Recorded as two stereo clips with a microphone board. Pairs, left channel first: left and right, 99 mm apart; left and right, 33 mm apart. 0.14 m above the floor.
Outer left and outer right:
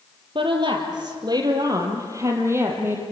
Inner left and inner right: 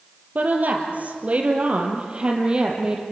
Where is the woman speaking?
55° right (ahead or behind), 3.5 m; by 3.0 s 20° right (ahead or behind), 4.5 m.